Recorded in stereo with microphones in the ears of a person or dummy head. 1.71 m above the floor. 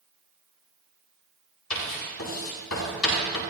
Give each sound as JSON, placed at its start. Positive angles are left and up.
{"t": 1.7, "sound": "writing", "side_deg": 85, "distance_m": 9.0}